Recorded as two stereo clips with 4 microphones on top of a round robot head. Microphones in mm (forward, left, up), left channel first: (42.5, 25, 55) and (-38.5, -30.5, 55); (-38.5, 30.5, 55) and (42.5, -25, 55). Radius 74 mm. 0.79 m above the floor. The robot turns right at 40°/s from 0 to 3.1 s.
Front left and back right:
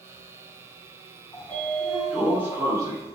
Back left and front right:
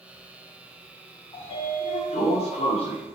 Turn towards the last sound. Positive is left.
turn(degrees=170)